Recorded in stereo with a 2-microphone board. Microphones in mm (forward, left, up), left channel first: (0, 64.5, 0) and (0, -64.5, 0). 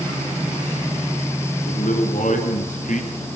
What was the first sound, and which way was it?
A man speaking, 80° left.